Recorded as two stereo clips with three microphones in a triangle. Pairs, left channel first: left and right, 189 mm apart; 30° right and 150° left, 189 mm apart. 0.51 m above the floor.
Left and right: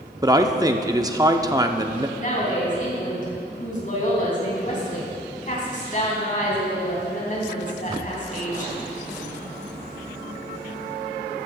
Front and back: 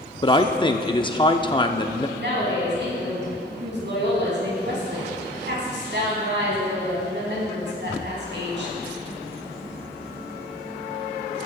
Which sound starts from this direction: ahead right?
A man speaking, at 0.2 s.